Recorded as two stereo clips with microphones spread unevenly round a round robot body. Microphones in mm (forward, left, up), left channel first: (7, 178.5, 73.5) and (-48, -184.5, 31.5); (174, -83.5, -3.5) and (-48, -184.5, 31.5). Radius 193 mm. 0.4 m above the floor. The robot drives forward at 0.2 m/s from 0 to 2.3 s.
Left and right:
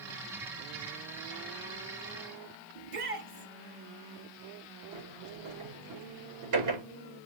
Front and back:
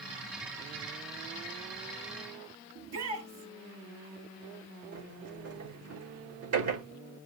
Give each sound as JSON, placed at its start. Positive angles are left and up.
{"t": 2.8, "sound": "a shout", "azimuth_deg": -155, "distance_m": 10.0}
{"t": 4.9, "sound": "a sliding door", "azimuth_deg": -140, "distance_m": 8.5}